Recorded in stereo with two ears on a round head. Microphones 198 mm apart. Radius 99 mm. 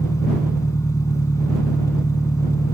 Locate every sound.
0.0 s an engine running: 15° left (ahead or behind)